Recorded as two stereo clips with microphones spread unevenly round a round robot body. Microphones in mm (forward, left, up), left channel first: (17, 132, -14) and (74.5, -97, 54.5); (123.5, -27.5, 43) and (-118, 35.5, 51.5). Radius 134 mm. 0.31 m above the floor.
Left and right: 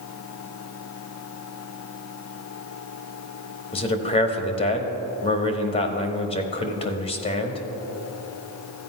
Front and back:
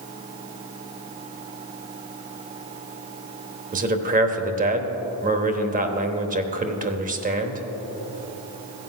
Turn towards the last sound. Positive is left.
turn(degrees=125)